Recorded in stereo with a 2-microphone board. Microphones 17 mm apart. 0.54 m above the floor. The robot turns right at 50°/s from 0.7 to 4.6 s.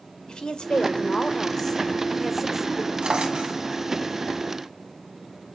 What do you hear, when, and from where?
0.3 s a woman speaking: 105° left, 1.6 m; by 2.9 s 145° right, 1.6 m
3.0 s a drawer: 85° right, 2.5 m; by 3.6 s 60° right (ahead or behind), 2.5 m